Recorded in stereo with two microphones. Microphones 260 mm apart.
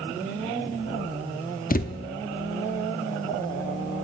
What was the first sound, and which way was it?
A thud, 35° left (ahead or behind).